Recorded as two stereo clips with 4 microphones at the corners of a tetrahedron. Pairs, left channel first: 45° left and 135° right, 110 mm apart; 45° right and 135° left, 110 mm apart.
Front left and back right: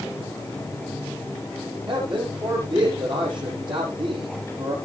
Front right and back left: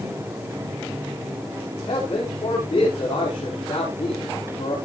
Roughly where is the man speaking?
Right.